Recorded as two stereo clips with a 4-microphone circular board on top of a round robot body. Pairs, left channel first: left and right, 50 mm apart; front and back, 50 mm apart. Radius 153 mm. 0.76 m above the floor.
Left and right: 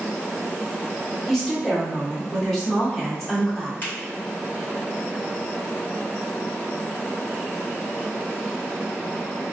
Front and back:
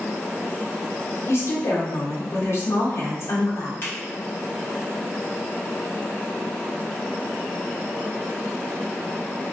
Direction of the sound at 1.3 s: 5° left.